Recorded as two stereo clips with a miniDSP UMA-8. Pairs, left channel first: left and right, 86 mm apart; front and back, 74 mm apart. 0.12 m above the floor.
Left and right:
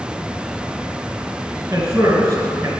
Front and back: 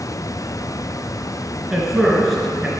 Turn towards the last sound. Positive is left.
turn(degrees=-90)